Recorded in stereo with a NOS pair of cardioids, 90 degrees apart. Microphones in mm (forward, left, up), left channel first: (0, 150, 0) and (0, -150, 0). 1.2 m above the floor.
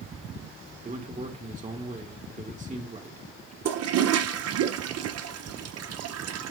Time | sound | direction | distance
0.8 | a man speaking | 25° right | 2.0 m
3.6 | a toilet flushing | 55° right | 0.8 m